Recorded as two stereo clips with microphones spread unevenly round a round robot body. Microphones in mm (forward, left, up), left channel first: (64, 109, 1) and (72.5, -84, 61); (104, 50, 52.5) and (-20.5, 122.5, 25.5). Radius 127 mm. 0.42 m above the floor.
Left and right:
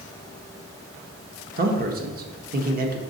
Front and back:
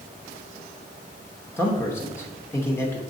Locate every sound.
1.6 s a man speaking: 105° right, 0.9 m